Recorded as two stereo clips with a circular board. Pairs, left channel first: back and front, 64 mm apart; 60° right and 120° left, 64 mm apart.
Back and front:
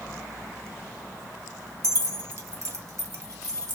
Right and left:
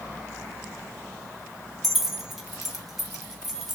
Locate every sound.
1.8 s keys jangling: 35° left, 0.7 m